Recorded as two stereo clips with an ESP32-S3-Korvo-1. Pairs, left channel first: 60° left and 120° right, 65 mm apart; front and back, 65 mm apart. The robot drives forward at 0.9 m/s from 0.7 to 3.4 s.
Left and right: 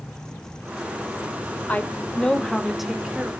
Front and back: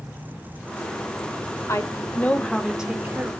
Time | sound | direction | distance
1.7 | a woman speaking | 5° left | 1.2 m